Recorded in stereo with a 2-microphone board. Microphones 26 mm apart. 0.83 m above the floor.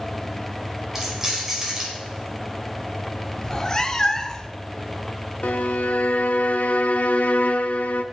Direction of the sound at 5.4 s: 80° left.